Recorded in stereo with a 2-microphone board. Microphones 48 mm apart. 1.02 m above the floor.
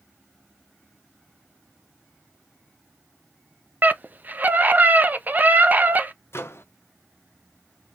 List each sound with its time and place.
3.8 s a scream: 40° right (ahead or behind), 0.6 m
6.3 s a microwave: 55° left (ahead or behind), 0.5 m